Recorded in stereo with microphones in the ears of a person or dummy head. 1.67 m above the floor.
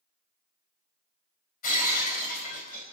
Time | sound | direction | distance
1.6 | breaking glass | 45° left (ahead or behind) | 4.5 m